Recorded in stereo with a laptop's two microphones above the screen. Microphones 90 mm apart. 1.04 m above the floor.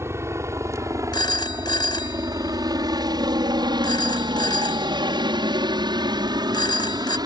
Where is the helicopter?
30° right (ahead or behind); by 7.3 s 45° right (ahead or behind).